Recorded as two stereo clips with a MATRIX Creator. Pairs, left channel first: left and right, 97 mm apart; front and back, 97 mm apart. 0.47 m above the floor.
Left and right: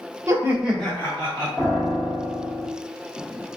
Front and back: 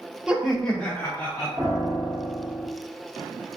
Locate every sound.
0.3 s laughter: 105° right, 0.8 m; by 1.5 s 55° left, 1.1 m
1.6 s a piano: 145° left, 1.4 m